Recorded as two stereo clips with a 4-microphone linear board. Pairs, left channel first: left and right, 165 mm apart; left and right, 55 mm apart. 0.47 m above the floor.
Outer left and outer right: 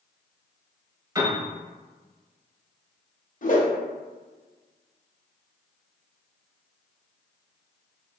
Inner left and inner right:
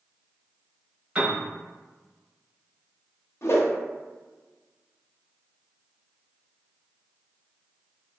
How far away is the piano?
About 0.8 m.